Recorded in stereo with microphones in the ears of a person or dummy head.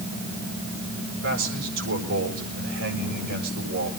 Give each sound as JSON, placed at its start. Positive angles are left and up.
{"t": 1.2, "sound": "a man speaking", "side_deg": -85, "distance_m": 7.5}